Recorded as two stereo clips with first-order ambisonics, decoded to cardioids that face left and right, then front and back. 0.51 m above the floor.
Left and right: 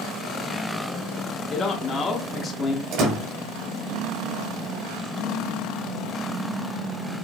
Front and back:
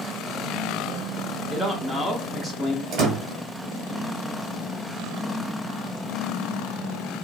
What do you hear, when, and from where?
1.5 s a man speaking: 90° left, 0.6 m
2.9 s a door slam: 135° right, 1.8 m